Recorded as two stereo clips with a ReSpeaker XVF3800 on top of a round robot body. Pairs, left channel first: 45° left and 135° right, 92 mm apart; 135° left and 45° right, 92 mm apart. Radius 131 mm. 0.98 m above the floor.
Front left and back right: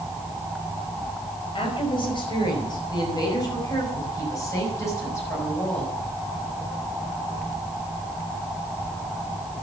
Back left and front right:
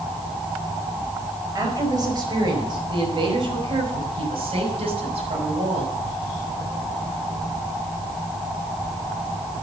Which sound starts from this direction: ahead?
A woman speaking, at 1.6 s.